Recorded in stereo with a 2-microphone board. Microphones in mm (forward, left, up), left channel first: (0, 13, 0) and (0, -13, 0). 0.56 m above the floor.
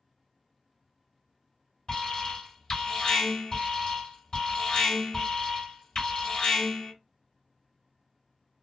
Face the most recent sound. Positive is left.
turn(degrees=25)  # may be behind; listen again after turning